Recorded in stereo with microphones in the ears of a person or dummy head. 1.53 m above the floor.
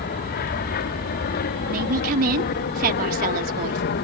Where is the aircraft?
55° left (ahead or behind).